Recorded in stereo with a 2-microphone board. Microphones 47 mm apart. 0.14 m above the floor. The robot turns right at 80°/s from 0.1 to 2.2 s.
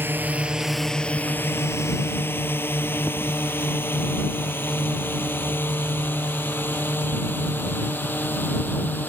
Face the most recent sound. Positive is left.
turn(degrees=45)  # may be behind; listen again after turning